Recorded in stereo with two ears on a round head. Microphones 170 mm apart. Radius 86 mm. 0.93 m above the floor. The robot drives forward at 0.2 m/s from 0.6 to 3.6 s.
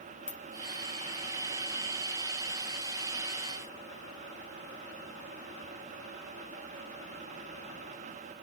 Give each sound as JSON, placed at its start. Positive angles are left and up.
{"t": 0.3, "sound": "a ringtone", "side_deg": 90, "distance_m": 1.2}